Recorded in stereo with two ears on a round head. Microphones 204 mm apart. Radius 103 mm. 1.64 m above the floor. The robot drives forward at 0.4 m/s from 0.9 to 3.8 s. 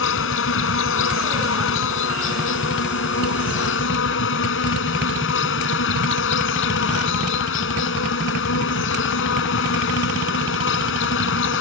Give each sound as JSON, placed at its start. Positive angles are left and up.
{"t": 0.0, "sound": "an insect", "side_deg": 65}